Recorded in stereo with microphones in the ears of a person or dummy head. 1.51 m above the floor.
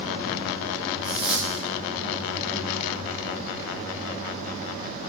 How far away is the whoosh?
About 3 m.